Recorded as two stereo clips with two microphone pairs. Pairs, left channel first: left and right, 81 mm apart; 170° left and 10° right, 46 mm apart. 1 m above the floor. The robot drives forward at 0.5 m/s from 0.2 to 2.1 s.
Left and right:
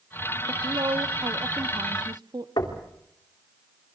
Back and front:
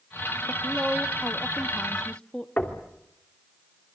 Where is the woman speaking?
75° right, 1.1 m; by 2.5 s 115° right, 1.2 m.